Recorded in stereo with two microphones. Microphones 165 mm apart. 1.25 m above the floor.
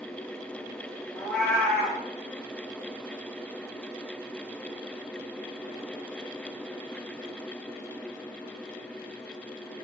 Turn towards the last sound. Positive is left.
turn(degrees=5)  # may be behind; listen again after turning